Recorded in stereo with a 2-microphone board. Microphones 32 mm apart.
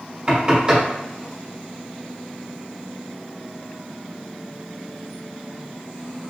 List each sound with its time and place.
0.3 s knocking: 25° right (ahead or behind), 1.4 m